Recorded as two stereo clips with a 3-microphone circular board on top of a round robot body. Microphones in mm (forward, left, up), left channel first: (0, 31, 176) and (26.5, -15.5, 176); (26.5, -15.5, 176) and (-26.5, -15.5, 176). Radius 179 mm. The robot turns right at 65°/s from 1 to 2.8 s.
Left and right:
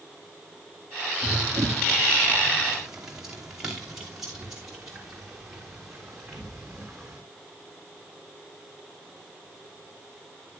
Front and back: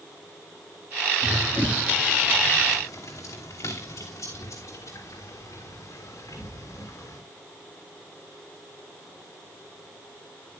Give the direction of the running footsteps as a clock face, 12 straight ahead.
3 o'clock.